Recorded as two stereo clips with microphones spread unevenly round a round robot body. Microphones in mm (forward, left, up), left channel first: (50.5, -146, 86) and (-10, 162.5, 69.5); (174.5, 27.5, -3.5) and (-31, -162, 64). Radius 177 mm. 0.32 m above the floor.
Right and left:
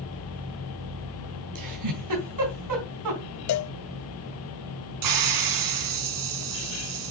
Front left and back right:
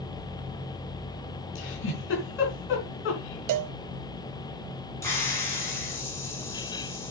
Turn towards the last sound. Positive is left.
turn(degrees=120)